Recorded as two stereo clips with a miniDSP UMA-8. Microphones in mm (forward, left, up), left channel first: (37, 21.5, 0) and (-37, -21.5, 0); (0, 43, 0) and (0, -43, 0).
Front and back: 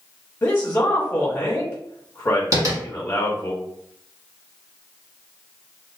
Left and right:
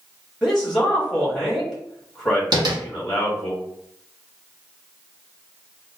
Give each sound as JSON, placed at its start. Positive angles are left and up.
{"t": 0.4, "sound": "a man speaking", "azimuth_deg": -10, "distance_m": 1.1}
{"t": 2.5, "sound": "tapping", "azimuth_deg": -110, "distance_m": 1.1}